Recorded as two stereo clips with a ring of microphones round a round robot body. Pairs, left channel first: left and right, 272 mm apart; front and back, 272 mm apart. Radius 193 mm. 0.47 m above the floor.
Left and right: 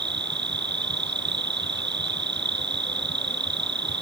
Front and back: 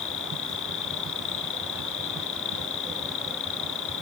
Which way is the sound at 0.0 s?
40° right.